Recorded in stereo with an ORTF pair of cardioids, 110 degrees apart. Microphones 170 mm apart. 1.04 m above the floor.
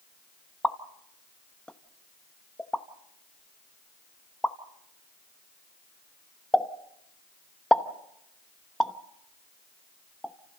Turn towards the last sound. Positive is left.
turn(degrees=5)